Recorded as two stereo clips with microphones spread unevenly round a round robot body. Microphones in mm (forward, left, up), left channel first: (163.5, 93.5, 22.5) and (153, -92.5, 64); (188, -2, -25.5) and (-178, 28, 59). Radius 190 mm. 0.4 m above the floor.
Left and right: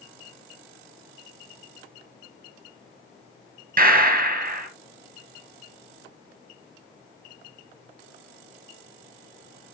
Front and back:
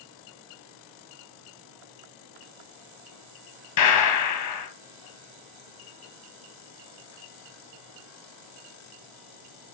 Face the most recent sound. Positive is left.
turn(degrees=-50)